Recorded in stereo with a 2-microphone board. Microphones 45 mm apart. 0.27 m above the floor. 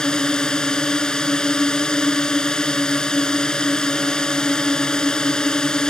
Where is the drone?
20° left (ahead or behind).